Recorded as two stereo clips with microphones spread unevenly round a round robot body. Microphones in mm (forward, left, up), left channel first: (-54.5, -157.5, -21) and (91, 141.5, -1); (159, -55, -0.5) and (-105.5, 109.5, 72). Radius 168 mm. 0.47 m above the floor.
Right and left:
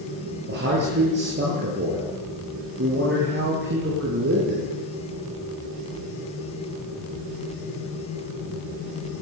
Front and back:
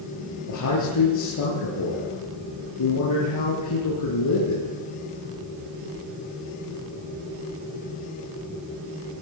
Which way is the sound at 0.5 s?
5° left.